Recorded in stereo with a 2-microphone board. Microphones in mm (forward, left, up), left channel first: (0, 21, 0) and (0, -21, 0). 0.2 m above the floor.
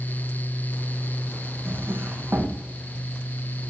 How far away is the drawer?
About 5 m.